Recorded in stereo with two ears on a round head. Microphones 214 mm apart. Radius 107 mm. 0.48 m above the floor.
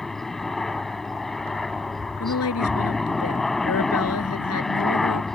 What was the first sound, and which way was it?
A helicopter, centre (ahead or behind).